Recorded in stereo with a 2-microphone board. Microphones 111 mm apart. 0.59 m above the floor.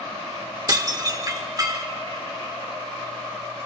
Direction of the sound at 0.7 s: 35° right (ahead or behind).